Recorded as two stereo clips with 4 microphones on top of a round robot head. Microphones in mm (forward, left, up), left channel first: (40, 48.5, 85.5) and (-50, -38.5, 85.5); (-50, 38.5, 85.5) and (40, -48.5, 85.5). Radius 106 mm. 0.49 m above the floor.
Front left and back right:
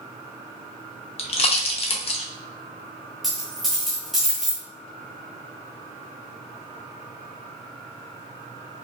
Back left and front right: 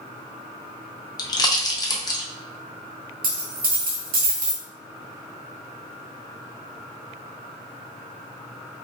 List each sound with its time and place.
1.2 s a pop: 80° left, 0.6 m
3.2 s a dropped coin: 45° right, 0.7 m